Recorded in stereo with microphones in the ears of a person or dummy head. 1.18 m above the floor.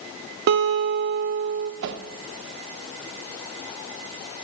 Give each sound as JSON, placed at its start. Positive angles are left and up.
{"t": 0.5, "sound": "a guitar", "side_deg": -60, "distance_m": 0.5}
{"t": 1.8, "sound": "a whoosh", "side_deg": -65, "distance_m": 0.7}